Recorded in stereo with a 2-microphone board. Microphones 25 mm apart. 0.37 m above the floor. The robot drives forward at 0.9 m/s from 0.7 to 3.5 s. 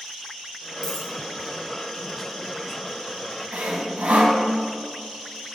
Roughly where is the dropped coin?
Left.